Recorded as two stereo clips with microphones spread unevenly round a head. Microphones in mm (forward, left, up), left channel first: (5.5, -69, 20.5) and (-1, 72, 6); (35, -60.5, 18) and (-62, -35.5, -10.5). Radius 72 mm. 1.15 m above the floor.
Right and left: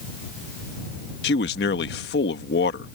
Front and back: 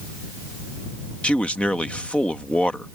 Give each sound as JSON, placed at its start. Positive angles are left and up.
{"t": 1.2, "sound": "a man speaking", "azimuth_deg": -95}